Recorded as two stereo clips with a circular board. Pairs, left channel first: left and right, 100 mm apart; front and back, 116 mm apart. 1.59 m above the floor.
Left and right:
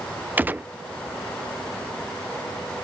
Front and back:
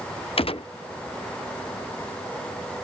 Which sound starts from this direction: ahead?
A gunshot, at 0.4 s.